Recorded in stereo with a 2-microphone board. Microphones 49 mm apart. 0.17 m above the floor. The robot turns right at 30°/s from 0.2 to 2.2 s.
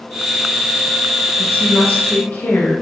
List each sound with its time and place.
1.4 s a woman speaking: 30° left (ahead or behind), 2.5 m; by 2.7 s 50° left (ahead or behind), 2.5 m